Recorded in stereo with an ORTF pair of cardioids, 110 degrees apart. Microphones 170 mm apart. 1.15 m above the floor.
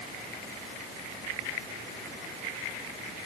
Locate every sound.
Only background noise.